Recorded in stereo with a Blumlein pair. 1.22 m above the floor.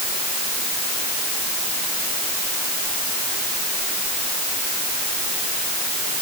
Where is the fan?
I don't hear a fan.